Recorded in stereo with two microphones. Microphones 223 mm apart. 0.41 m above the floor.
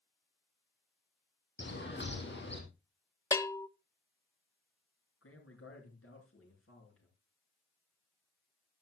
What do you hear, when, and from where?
1.6 s a bird: 55° left (ahead or behind), 3.5 m
3.3 s a bell: 15° left (ahead or behind), 0.6 m
5.2 s a man speaking: 80° left, 6.5 m